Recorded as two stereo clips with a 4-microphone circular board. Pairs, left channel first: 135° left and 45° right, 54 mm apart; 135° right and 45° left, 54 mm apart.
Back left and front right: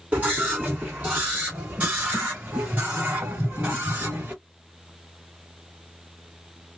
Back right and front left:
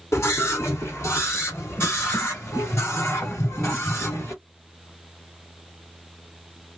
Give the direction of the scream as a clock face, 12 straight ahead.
4 o'clock.